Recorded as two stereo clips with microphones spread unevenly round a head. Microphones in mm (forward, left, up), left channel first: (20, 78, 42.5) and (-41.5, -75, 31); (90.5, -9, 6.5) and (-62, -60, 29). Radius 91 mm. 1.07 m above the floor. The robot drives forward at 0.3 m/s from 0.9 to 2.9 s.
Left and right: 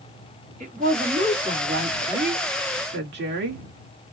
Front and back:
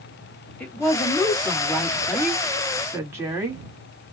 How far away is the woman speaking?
About 1.6 m.